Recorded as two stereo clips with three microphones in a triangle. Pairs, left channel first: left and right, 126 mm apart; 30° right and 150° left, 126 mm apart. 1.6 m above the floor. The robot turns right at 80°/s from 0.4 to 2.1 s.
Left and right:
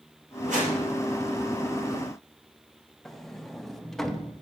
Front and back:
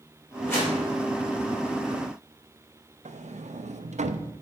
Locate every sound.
0.5 s a whoosh: 105° right, 4 m; by 0.8 s 80° right, 4 m
3.0 s a sliding door: 175° left, 0.6 m